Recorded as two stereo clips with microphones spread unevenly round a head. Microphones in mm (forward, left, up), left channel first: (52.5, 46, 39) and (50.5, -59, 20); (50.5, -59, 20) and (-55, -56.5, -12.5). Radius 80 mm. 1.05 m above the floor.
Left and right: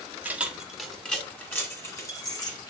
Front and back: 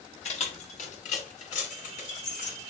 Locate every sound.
0.2 s keys jangling: 15° right, 1.6 m; by 2.7 s 35° left, 2.5 m